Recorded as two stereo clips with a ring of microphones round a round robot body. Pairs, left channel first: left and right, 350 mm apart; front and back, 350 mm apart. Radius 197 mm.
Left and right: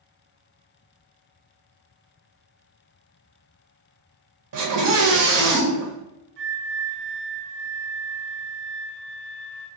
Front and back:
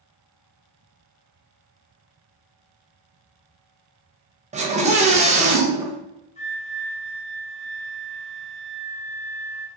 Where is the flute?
70° right, 0.7 m.